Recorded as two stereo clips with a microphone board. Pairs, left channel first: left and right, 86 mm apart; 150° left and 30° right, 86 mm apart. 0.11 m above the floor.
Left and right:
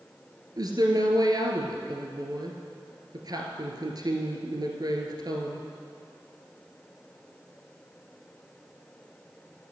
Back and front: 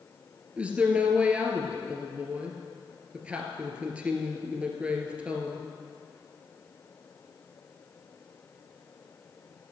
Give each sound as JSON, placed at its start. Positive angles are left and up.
{"t": 0.6, "sound": "a woman speaking", "azimuth_deg": -100, "distance_m": 1.6}